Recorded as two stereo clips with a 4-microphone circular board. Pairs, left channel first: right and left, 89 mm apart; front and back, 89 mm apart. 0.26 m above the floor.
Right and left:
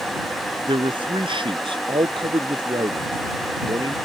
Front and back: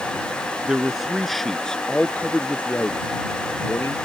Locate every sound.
0.7 s a man speaking: 100° left; by 4.0 s 60° left